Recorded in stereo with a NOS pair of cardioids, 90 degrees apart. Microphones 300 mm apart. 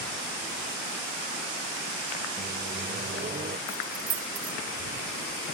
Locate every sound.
2.4 s a microwave: 30° right
3.7 s keys jangling: 60° right